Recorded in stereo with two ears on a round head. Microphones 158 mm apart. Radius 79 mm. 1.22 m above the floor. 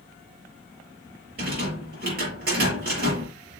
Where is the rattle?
60° right (ahead or behind), 6 m.